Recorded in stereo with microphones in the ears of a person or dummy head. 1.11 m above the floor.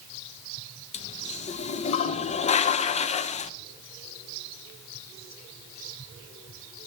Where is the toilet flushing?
35° left (ahead or behind), 0.6 m.